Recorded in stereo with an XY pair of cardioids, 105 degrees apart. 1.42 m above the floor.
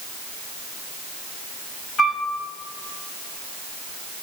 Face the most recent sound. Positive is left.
turn(degrees=45)